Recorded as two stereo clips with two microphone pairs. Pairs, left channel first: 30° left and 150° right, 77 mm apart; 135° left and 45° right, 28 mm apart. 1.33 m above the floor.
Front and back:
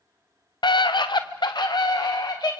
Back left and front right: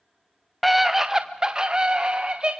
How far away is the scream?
About 0.7 m.